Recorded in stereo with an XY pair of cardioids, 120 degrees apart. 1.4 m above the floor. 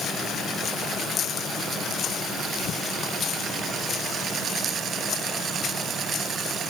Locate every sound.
Only background noise.